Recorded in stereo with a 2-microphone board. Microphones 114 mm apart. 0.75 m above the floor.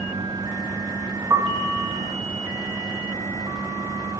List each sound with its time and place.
1.3 s a piano: 30° right (ahead or behind), 0.6 m